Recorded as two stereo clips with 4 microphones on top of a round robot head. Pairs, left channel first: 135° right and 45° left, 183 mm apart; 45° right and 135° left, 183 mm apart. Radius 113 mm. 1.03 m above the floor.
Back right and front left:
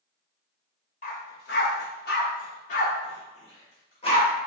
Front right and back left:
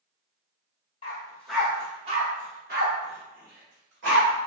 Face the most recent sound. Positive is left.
turn(degrees=160)